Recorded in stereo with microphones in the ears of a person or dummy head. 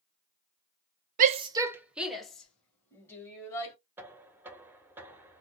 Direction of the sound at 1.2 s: 45° right (ahead or behind).